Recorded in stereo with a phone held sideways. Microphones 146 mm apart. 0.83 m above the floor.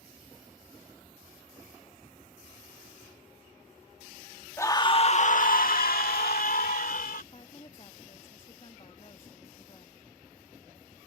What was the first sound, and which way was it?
A scream, 15° left (ahead or behind).